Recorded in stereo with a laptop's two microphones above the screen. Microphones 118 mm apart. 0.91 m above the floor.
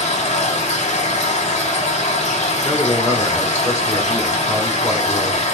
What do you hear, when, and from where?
0.0 s a machine running: 70° left (ahead or behind), 1.5 m
2.6 s a man speaking: 25° left (ahead or behind), 2.5 m